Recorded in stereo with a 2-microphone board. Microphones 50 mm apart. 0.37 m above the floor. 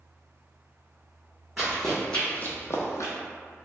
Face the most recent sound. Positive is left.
turn(degrees=70)  # may be behind; listen again after turning